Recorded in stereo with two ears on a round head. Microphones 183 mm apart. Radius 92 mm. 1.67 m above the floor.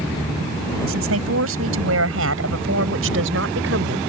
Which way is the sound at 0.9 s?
75° right (ahead or behind).